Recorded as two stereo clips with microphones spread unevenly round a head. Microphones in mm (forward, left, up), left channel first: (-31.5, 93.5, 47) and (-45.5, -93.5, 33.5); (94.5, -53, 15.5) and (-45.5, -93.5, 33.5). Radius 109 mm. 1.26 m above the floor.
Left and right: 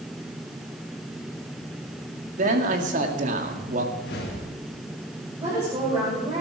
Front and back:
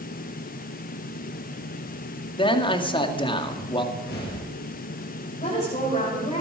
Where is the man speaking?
40° right, 2 m.